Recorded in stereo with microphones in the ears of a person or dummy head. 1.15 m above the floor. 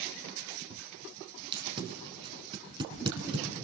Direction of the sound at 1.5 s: 25° right (ahead or behind).